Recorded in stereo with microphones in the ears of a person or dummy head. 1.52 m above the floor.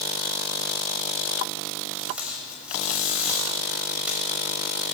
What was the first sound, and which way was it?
Tape being pulled, 5° right (ahead or behind).